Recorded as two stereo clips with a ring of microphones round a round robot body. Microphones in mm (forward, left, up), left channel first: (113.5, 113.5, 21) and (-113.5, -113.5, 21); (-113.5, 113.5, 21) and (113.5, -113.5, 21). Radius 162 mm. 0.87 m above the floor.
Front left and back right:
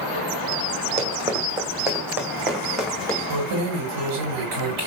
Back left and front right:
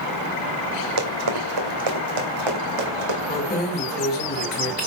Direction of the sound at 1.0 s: 65° right.